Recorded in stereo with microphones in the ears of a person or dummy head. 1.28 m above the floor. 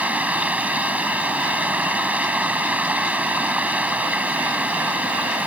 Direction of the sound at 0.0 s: 10° right (ahead or behind).